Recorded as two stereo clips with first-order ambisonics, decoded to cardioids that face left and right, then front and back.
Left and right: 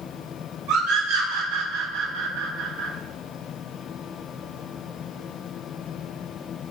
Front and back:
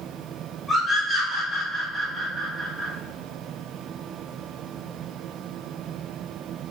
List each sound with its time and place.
0.7 s a scream: 90° right, 5 m; by 2.9 s 105° right, 6 m